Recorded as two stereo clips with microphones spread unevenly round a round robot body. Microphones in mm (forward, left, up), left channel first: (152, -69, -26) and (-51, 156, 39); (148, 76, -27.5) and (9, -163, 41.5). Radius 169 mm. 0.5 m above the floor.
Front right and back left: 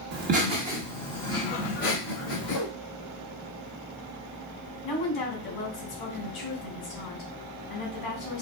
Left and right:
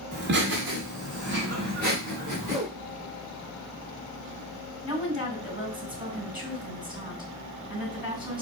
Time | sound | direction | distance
0.1 | laughter | 175° right | 1.4 m
2.4 | a whoosh | 35° right | 2.5 m
4.8 | a woman speaking | 45° right | 3 m